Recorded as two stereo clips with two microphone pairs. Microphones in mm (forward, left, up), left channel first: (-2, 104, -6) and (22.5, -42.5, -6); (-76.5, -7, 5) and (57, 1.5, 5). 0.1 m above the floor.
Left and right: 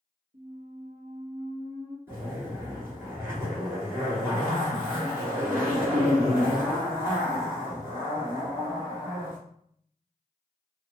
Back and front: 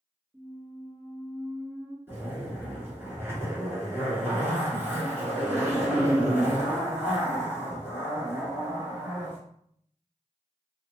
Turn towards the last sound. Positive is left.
turn(degrees=-40)